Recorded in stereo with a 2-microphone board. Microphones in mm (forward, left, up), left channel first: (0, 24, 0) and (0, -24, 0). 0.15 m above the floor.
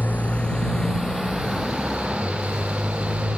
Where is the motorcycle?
40° left (ahead or behind); by 3.4 s 15° right (ahead or behind).